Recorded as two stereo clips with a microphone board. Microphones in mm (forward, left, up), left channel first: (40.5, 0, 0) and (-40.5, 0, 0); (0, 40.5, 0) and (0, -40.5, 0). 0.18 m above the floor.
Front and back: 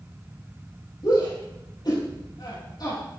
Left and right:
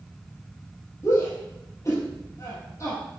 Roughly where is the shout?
Ahead left.